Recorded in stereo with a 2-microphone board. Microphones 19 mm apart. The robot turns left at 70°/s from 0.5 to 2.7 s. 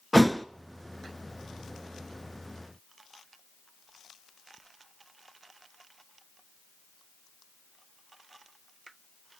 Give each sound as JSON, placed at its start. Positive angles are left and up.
{"t": 0.1, "sound": "a thud", "side_deg": 5, "distance_m": 0.6}